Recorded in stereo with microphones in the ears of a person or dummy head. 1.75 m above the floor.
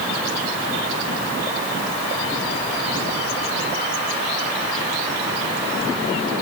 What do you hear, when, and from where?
Only background noise.